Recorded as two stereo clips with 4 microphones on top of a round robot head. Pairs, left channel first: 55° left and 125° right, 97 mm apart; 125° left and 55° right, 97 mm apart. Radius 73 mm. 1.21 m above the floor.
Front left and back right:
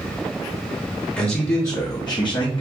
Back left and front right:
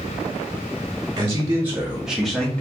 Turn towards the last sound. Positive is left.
turn(degrees=50)